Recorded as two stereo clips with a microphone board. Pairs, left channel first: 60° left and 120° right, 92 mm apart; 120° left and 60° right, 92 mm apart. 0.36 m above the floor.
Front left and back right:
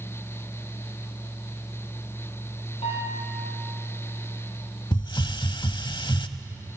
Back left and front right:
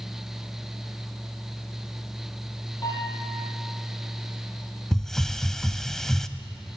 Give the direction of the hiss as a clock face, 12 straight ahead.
11 o'clock.